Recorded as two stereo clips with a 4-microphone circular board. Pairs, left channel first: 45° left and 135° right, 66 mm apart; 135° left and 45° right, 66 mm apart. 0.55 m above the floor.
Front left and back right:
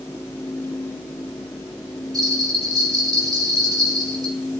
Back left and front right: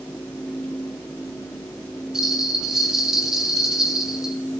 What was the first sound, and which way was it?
A bell, 130° right.